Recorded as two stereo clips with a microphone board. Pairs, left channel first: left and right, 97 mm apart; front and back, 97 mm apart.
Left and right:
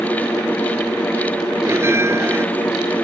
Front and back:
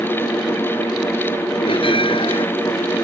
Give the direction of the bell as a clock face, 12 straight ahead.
1 o'clock.